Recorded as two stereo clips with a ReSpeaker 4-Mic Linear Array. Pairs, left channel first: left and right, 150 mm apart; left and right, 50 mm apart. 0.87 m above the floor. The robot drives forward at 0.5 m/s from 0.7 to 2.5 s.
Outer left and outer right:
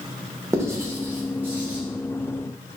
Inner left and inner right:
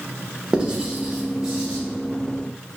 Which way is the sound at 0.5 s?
20° right (ahead or behind).